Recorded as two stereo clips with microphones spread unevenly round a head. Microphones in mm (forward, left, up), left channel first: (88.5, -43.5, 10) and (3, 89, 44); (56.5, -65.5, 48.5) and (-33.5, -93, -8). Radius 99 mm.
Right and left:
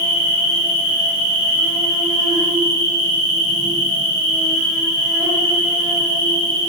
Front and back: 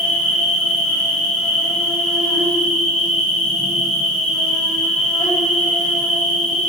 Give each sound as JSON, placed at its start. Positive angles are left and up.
{"t": 0.0, "sound": "an insect", "azimuth_deg": 80, "distance_m": 1.6}